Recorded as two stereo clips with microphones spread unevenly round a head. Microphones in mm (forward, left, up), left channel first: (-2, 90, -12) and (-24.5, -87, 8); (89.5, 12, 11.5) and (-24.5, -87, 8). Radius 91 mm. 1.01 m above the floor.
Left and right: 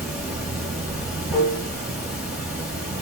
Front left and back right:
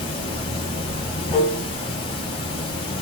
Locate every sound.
0.0 s running water: 15° right, 4 m